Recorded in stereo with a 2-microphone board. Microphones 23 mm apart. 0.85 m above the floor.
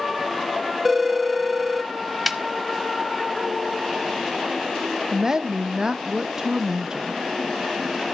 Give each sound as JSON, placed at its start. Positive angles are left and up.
{"t": 0.8, "sound": "a phone ringing", "side_deg": -10, "distance_m": 0.5}
{"t": 2.3, "sound": "a snare drum", "side_deg": -5, "distance_m": 0.7}
{"t": 5.1, "sound": "a woman speaking", "side_deg": -35, "distance_m": 0.6}